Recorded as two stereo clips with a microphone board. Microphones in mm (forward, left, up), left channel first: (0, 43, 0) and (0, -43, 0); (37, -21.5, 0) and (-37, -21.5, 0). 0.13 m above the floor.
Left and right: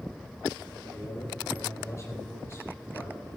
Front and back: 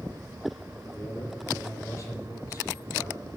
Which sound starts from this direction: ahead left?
A man speaking, at 0.8 s.